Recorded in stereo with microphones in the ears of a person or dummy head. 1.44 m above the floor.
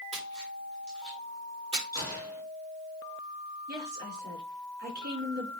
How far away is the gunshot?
About 5.5 m.